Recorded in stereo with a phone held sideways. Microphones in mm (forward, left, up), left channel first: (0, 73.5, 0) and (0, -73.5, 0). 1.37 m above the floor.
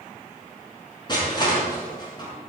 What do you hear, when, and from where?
1.1 s crushing: 30° left (ahead or behind), 7 m